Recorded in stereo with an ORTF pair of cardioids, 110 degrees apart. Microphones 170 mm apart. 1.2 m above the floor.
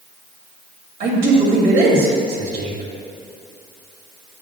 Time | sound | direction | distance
1.0 | a man speaking | 65° right | 2.5 m